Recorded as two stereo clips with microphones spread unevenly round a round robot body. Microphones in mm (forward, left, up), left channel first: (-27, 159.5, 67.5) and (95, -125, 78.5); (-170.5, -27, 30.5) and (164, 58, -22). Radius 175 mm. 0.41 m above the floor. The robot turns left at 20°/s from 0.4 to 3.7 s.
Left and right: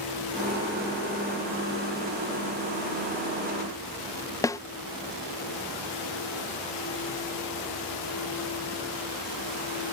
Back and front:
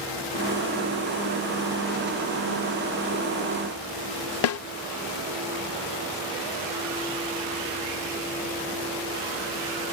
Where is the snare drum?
Straight behind.